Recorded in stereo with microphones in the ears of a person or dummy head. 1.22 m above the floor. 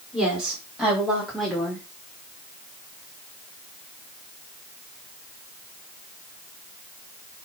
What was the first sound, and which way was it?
A woman speaking, centre (ahead or behind).